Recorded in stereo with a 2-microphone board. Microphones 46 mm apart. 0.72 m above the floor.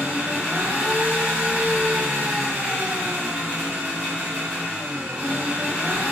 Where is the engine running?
30° right (ahead or behind), 1.6 m.